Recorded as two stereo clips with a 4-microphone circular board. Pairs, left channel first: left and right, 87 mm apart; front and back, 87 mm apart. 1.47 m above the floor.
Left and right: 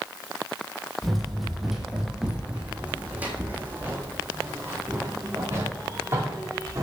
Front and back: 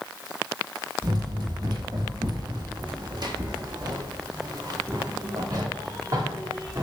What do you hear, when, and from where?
1.0 s running footsteps: 175° left, 2.5 m; by 6.8 s 140° right, 5 m